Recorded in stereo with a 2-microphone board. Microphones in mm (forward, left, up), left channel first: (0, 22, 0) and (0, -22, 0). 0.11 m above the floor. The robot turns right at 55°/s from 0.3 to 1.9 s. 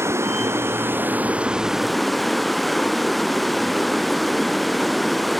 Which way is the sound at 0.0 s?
85° right.